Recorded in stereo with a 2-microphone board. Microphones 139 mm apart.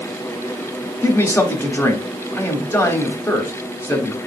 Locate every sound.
1.0 s a man speaking: 20° left (ahead or behind), 1.0 m